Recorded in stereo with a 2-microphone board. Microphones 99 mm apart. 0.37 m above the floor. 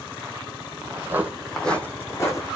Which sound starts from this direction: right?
Footsteps, at 0.9 s.